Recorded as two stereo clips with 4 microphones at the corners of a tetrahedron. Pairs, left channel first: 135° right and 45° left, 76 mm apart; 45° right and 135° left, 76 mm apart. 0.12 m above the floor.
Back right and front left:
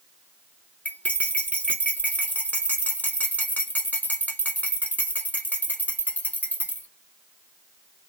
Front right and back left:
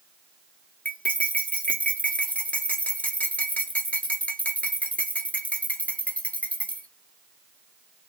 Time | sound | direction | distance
0.8 | cutlery clinking | 95° right | 0.8 m